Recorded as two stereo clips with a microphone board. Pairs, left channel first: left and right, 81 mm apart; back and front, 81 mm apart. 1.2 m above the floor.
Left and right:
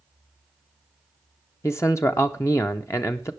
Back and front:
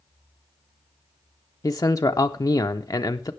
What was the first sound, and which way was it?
A man speaking, 140° left.